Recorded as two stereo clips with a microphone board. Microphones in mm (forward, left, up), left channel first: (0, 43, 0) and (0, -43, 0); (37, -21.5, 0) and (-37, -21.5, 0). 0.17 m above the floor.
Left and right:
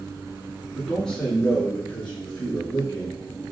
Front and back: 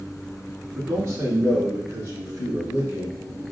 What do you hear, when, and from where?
0.8 s a man speaking: straight behind, 1.2 m; by 3.2 s 155° left, 2.5 m